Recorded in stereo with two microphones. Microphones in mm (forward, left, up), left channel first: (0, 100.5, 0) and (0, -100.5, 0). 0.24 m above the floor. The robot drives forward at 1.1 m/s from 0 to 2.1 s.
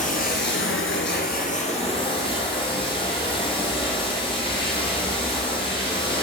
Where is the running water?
40° left (ahead or behind), 1.1 m; by 6.2 s 25° left (ahead or behind), 1.6 m.